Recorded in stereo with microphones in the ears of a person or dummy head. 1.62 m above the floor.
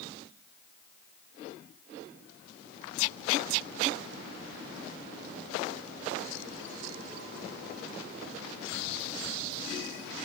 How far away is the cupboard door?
I don't hear a cupboard door.